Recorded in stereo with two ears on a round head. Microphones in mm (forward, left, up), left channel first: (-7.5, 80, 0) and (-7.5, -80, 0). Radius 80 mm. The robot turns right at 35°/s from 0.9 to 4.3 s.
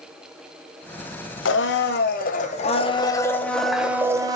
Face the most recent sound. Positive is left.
turn(degrees=-160)